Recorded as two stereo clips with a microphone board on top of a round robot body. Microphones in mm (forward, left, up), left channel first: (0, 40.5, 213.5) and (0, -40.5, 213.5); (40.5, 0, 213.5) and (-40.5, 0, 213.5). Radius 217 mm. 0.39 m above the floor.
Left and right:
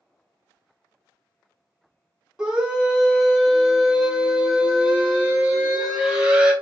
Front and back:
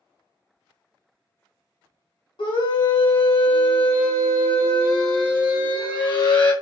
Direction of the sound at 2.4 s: 10° right.